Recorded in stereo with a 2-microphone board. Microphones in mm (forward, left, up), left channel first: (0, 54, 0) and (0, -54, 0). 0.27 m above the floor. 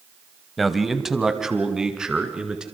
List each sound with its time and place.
0.6 s a man speaking: centre (ahead or behind), 1.6 m; by 2.6 s 10° right (ahead or behind), 4 m